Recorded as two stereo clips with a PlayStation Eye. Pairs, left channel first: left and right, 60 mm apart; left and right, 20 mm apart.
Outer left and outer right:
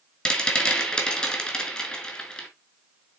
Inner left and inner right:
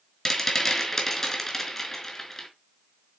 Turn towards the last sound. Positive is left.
turn(degrees=15)  # may be behind; listen again after turning